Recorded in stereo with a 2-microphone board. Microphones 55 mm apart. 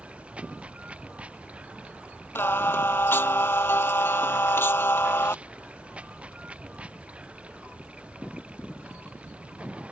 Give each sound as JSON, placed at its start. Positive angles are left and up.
{"t": 0.0, "sound": "running water", "side_deg": -25}
{"t": 2.4, "sound": "singing", "side_deg": 45}